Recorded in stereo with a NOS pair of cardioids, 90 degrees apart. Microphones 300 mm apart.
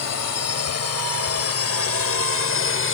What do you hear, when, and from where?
0.0 s a drone: 60° left; by 3.0 s 45° left